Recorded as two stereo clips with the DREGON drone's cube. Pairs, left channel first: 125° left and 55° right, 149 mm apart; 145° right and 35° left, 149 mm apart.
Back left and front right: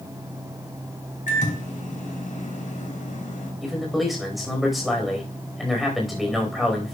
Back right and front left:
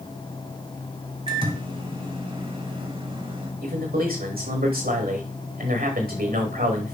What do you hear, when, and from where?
1.3 s a microwave: 90° left, 2.5 m
3.6 s a man speaking: 35° left, 4 m